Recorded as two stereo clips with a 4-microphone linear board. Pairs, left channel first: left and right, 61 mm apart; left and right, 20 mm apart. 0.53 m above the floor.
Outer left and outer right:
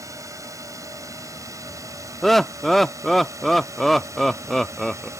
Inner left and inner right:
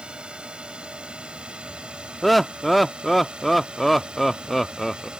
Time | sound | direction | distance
0.0 | a drone | 60° right (ahead or behind) | ?
2.2 | laughter | centre (ahead or behind) | ?